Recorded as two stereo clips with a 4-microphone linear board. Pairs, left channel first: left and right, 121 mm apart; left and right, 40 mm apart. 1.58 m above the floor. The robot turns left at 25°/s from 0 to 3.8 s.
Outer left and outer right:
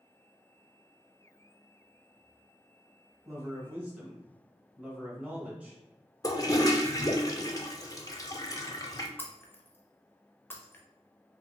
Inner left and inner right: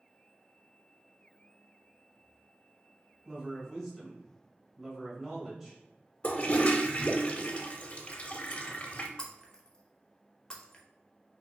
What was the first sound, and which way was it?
A man speaking, 25° right (ahead or behind).